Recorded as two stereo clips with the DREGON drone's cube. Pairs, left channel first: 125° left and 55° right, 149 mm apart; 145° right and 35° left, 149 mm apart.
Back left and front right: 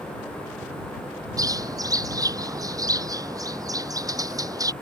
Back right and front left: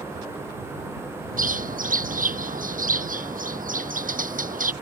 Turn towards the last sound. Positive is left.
turn(degrees=10)